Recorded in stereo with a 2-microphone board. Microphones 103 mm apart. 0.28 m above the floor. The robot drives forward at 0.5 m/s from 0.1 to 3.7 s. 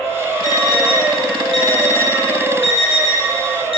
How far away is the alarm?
About 5.5 m.